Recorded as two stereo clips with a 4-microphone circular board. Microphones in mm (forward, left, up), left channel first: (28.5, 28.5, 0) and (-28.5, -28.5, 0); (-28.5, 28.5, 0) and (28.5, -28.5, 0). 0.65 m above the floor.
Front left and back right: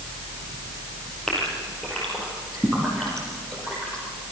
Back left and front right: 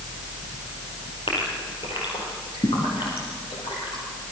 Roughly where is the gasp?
Behind left.